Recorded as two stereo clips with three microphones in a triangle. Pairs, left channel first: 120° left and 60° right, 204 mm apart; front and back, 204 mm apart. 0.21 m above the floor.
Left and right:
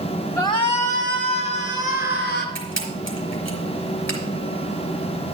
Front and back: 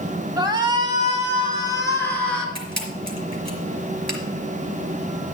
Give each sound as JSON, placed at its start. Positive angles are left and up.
{"t": 0.4, "sound": "a shout", "azimuth_deg": 160, "distance_m": 1.1}
{"t": 2.5, "sound": "a camera shutter", "azimuth_deg": 115, "distance_m": 4.0}